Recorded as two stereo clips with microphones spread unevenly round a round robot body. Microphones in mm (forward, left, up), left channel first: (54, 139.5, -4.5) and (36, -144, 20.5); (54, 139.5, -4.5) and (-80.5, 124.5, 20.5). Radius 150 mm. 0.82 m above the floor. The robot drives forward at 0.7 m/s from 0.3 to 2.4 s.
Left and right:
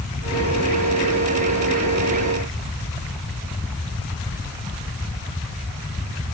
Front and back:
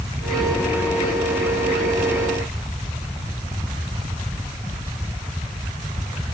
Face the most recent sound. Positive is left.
No sound to turn to.